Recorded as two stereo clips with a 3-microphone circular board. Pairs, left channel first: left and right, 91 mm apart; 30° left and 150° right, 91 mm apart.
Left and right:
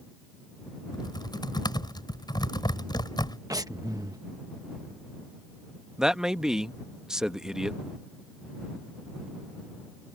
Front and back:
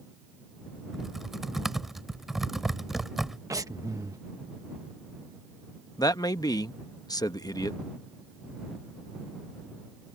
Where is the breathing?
115° right.